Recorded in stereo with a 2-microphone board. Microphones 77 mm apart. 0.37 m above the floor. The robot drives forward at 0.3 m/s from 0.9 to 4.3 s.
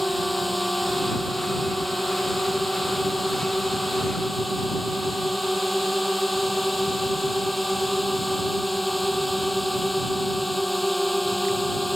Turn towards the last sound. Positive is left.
turn(degrees=0)  # may be behind; listen again after turning